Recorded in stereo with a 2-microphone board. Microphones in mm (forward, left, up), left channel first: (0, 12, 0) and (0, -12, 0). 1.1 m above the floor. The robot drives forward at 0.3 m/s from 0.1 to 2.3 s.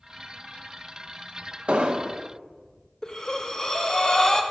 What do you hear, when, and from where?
1.7 s an explosion: 55° right (ahead or behind), 0.8 m; by 2.2 s 45° right (ahead or behind), 0.9 m
3.0 s breathing: 25° left (ahead or behind), 0.8 m